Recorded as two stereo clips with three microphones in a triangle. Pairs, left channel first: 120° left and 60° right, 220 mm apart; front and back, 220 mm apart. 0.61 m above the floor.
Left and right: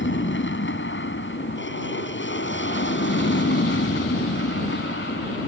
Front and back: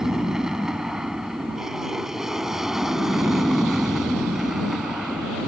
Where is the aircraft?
95° left; by 5.5 s 90° left.